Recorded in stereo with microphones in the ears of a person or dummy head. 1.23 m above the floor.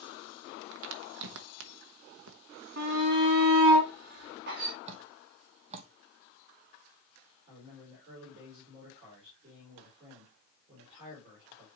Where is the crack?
75° right (ahead or behind), 0.7 m.